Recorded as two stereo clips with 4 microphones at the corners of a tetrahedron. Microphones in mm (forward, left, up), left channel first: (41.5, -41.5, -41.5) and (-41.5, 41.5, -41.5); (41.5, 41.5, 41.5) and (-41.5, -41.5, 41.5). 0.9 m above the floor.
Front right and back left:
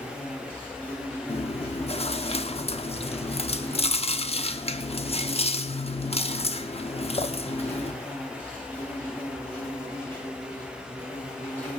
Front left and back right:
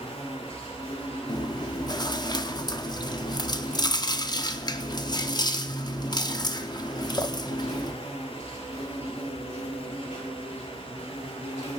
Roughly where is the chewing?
Ahead.